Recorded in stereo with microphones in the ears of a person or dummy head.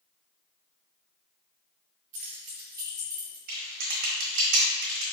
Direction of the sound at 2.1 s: 45° right (ahead or behind).